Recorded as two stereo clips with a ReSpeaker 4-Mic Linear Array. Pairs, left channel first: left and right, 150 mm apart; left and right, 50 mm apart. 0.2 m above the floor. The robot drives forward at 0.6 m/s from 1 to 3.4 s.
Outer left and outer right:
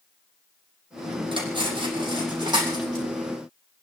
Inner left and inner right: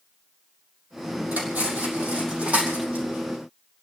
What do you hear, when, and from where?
1.3 s cutlery clinking: 35° right (ahead or behind), 4 m; by 3.0 s 30° right (ahead or behind), 5 m